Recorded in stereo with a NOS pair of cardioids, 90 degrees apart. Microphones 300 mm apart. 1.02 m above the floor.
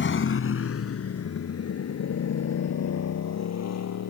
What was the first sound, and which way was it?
A motorcycle, 40° left.